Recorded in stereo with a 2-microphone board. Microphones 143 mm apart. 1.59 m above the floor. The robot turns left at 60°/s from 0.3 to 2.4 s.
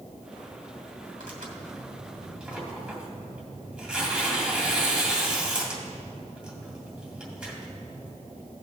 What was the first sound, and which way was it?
Tearing paper, 80° right.